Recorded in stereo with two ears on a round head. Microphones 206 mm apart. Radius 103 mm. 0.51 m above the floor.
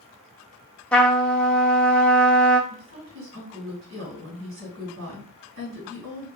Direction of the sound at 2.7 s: 65° right (ahead or behind).